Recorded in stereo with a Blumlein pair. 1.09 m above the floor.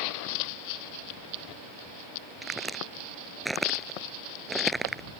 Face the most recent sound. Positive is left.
turn(degrees=-5)